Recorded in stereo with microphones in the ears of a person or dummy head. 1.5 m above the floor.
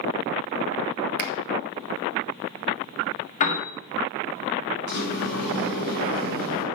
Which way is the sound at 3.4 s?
50° left (ahead or behind).